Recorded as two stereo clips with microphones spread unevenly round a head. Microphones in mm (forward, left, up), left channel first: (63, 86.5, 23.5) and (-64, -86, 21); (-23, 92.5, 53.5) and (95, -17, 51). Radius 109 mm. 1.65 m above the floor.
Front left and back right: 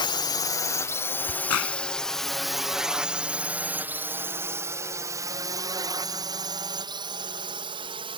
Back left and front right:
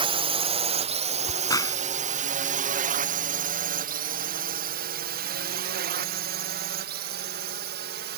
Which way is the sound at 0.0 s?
5° right.